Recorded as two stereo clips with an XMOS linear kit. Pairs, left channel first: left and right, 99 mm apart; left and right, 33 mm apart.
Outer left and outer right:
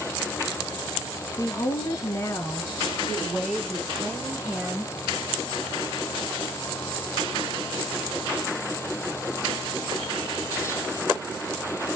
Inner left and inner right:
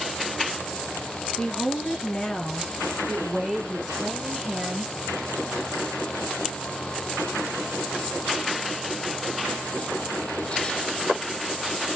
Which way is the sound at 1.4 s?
40° left (ahead or behind).